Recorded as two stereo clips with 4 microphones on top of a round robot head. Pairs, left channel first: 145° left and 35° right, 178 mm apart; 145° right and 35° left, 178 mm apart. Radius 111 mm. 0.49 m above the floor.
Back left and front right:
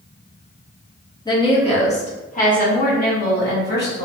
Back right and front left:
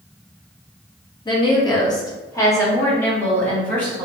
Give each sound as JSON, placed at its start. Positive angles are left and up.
{"t": 1.2, "sound": "a woman speaking", "azimuth_deg": -175, "distance_m": 1.1}